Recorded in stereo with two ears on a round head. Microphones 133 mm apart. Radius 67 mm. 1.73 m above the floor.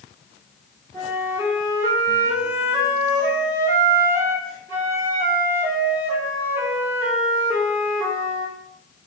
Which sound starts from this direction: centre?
A flute, at 0.9 s.